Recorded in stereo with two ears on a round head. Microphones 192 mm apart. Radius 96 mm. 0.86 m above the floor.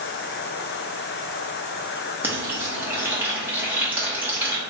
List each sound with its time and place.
2.2 s frying: 10° right (ahead or behind), 1.0 m